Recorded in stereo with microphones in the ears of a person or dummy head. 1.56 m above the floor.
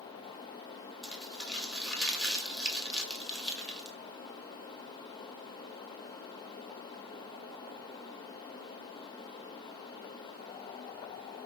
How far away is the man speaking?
No man speaking in this recording.